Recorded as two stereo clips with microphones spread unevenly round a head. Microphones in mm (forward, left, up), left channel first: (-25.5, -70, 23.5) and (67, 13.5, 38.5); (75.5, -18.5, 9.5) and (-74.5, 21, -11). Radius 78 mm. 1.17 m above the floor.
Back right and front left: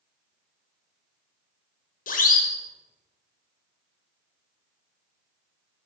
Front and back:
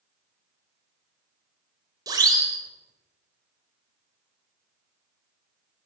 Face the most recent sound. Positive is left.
turn(degrees=-125)